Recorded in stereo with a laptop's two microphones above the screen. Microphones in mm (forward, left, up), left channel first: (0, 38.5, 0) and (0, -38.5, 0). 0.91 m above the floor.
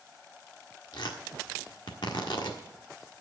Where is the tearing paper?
80° left, 1.5 m.